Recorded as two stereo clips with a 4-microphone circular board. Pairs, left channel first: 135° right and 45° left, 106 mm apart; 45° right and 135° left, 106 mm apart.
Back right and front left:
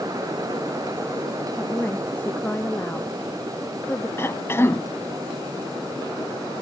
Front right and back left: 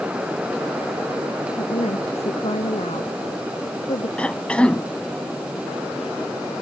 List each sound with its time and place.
1.6 s a woman speaking: 60° right; by 4.1 s 65° right
4.2 s a cough: 110° right